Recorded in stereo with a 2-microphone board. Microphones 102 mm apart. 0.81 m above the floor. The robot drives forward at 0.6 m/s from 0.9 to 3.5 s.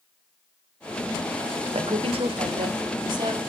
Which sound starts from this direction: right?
A woman speaking, at 1.7 s.